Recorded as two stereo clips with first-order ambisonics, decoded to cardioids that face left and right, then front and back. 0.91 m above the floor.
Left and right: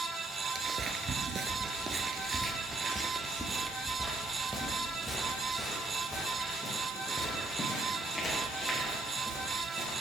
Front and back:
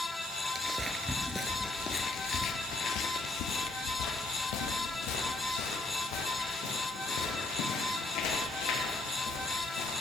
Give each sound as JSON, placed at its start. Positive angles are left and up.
{"t": 0.6, "sound": "footsteps", "azimuth_deg": -125, "distance_m": 1.0}